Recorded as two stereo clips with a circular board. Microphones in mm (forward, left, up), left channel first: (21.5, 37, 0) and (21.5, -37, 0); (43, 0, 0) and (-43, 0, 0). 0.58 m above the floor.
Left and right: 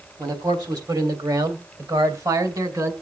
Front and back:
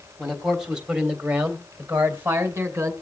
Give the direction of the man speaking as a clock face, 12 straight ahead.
3 o'clock.